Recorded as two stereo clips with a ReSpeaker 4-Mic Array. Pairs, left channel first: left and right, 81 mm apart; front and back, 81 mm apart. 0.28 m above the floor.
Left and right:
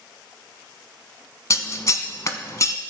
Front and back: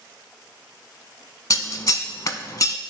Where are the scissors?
45° left, 0.6 m.